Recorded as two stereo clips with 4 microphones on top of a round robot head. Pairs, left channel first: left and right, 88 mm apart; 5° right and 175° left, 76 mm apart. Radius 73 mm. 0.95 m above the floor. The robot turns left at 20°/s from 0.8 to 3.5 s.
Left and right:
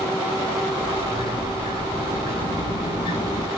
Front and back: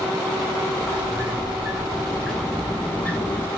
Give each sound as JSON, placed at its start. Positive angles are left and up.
{"t": 0.7, "sound": "a sliding door", "azimuth_deg": 110, "distance_m": 0.5}